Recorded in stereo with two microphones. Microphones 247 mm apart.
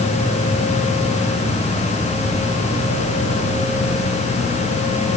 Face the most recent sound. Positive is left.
No sound to turn to.